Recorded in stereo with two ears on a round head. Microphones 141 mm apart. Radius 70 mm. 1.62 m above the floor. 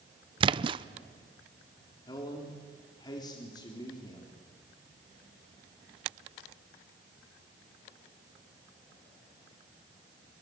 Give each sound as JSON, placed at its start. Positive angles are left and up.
{"t": 0.4, "sound": "a splash", "side_deg": -30, "distance_m": 0.5}
{"t": 2.1, "sound": "a man speaking", "side_deg": 25, "distance_m": 3.5}